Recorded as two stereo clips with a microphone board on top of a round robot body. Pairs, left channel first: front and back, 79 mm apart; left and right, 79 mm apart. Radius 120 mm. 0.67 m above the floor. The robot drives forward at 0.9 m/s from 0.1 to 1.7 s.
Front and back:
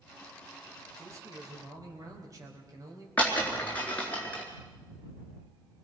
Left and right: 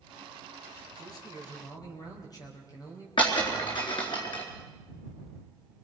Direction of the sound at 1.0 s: 125° left.